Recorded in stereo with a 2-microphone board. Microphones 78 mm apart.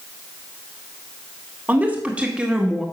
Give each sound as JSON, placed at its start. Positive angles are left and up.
{"t": 1.7, "sound": "a woman speaking", "side_deg": -20, "distance_m": 2.0}